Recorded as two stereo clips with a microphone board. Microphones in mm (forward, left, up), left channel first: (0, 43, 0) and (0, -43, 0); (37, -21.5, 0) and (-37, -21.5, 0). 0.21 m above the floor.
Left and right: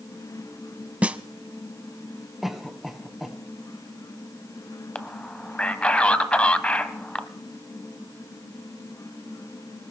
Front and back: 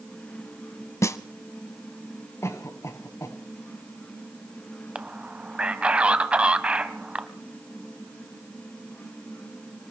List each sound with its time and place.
1.0 s a snare drum: 25° right, 0.7 m
2.4 s a cough: 5° right, 1.5 m
5.0 s a man speaking: 140° left, 1.0 m